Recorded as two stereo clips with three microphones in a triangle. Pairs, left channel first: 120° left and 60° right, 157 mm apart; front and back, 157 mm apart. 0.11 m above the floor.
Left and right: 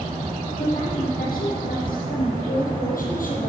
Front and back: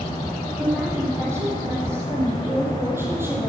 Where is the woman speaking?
110° left, 5.5 m; by 3.5 s 105° left, 3.5 m.